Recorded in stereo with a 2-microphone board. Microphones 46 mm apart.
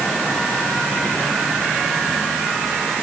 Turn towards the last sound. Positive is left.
No sound to turn to.